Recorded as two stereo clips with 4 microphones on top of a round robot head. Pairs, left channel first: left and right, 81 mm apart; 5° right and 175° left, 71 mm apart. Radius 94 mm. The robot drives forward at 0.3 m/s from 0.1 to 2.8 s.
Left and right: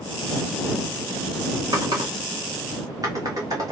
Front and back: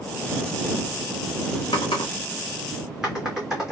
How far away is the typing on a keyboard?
About 0.6 m.